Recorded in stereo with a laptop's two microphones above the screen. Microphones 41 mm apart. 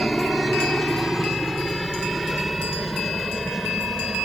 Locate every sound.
0.0 s a helicopter: 5° right (ahead or behind)